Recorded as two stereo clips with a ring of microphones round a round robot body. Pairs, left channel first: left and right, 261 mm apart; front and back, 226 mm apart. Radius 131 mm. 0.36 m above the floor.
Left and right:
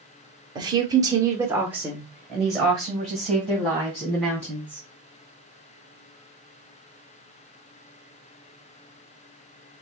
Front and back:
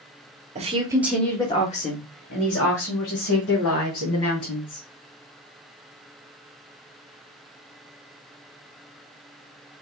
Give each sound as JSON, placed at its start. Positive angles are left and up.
{"t": 0.6, "sound": "a woman speaking", "azimuth_deg": -150, "distance_m": 1.2}